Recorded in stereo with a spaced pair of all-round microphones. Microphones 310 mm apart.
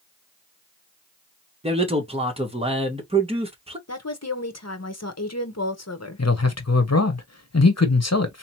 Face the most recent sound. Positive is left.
turn(degrees=60)  # may be behind; listen again after turning